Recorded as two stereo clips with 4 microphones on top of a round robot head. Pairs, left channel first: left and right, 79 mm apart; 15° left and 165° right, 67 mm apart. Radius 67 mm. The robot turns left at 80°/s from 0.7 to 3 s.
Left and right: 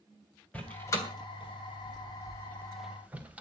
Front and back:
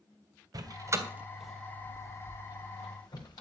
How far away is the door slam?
About 3 m.